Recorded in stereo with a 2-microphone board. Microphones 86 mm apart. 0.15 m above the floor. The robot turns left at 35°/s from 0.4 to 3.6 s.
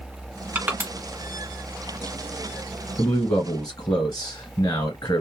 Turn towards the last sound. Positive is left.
turn(degrees=40)  # may be behind; listen again after turning